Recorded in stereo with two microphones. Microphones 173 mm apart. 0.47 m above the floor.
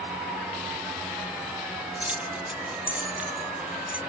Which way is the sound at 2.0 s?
10° right (ahead or behind).